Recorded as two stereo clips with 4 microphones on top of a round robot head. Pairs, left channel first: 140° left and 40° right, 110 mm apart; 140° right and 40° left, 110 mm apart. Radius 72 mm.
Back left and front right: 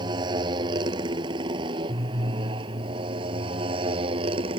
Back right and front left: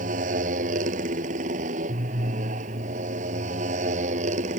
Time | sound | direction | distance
0.0 | a motorcycle | 15° left | ?